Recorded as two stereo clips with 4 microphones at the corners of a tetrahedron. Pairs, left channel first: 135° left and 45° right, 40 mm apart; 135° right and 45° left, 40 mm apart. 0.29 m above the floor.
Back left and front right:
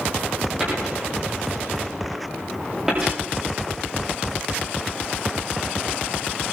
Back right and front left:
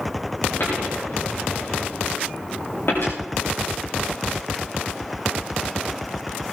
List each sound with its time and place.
0.6 s a dropped coin: 120° right, 8 m